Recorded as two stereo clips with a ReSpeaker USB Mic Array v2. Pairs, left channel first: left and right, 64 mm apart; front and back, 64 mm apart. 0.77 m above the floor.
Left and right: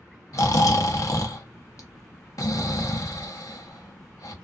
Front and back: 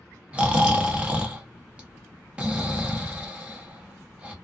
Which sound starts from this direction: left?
Snoring, at 0.3 s.